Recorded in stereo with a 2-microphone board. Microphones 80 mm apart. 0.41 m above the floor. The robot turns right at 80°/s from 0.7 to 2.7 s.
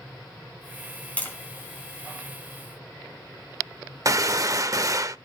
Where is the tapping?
15° left (ahead or behind), 3.5 m; by 1.4 s 30° left (ahead or behind), 3.5 m.